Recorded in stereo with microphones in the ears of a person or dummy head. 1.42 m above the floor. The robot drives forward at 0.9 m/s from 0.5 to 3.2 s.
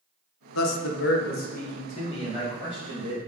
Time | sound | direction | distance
0.6 | a man speaking | 85° left | 0.8 m